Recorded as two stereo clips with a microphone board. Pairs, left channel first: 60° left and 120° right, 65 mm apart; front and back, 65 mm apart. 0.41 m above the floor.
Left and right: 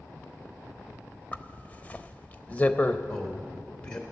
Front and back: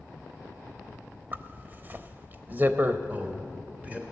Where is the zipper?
125° left, 0.7 m.